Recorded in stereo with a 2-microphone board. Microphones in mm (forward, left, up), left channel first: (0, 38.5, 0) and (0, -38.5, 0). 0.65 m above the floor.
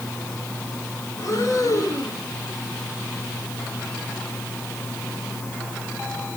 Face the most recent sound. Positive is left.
turn(degrees=50)  # may be behind; listen again after turning